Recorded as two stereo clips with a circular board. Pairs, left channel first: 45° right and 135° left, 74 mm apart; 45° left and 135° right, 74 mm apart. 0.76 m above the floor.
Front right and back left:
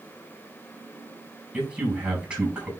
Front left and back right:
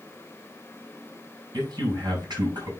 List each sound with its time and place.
1.5 s a man speaking: 150° right, 5.5 m